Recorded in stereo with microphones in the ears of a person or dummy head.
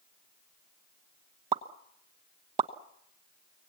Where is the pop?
30° right (ahead or behind), 0.9 m.